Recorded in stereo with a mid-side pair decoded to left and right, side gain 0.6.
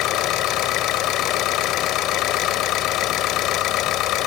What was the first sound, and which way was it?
An engine running, 65° left.